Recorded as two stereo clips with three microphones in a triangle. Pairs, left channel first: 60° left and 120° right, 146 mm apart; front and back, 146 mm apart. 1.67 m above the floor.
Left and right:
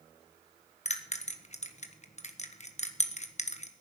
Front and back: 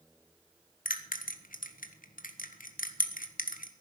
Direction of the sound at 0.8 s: 20° left.